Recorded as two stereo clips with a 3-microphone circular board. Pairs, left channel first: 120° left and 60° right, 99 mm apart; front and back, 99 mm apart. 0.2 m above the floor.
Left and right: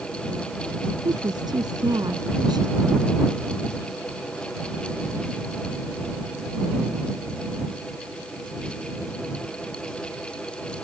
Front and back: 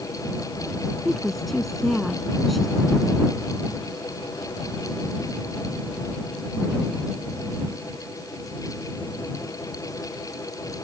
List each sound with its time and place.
1.1 s a woman speaking: 90° right